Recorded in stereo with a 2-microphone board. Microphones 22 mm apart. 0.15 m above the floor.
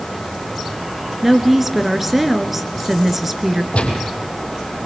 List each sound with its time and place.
1.2 s a woman speaking: 15° right (ahead or behind), 2 m
3.7 s a gunshot: 75° left (ahead or behind), 3.5 m